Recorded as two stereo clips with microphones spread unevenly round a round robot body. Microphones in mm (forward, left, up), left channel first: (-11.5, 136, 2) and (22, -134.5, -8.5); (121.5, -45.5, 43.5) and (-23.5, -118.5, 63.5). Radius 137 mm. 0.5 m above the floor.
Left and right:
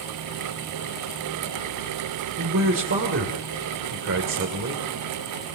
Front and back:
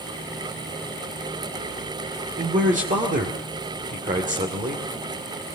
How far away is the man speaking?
About 2 m.